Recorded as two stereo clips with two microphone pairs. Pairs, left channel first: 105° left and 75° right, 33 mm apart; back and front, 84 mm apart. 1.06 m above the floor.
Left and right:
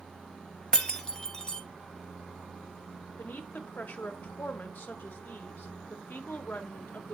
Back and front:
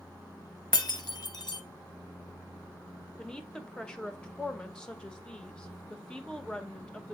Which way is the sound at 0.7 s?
170° left.